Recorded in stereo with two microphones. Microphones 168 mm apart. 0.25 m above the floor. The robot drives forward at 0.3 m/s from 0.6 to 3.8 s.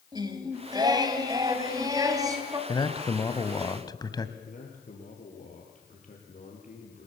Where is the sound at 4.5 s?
45° left (ahead or behind), 6 m.